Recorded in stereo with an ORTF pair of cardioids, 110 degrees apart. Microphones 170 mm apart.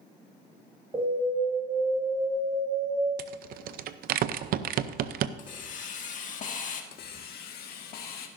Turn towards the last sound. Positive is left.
turn(degrees=70)